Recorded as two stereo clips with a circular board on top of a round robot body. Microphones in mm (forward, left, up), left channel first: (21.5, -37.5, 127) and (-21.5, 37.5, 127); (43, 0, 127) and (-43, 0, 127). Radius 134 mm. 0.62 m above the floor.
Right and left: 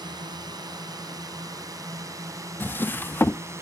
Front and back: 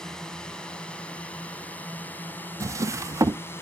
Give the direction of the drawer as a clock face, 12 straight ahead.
4 o'clock.